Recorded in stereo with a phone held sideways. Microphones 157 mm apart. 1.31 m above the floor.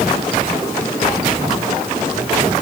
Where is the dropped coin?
I don't hear a dropped coin.